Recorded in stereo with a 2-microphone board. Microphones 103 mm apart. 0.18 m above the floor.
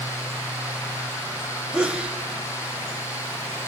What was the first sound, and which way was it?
A sneeze, 10° right (ahead or behind).